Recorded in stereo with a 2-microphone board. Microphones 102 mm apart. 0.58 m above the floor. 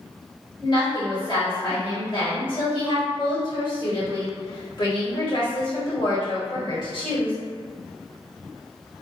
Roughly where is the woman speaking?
Left.